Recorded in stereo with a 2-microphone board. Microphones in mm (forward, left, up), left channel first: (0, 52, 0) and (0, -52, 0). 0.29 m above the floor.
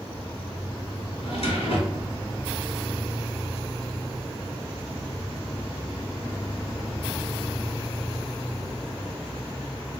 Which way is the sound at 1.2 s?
70° left (ahead or behind).